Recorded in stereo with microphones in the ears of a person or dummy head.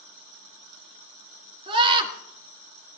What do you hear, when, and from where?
1.7 s a scream: 30° right (ahead or behind), 1.9 m